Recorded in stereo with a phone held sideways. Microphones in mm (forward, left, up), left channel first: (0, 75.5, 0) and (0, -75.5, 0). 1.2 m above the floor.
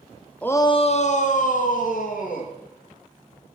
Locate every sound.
0.4 s a shout: 10° left (ahead or behind), 0.6 m; by 2.5 s 60° left (ahead or behind), 2.5 m